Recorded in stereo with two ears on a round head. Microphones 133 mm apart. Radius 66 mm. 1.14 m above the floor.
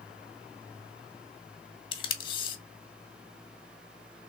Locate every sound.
1.9 s tape being pulled: 30° left (ahead or behind), 0.8 m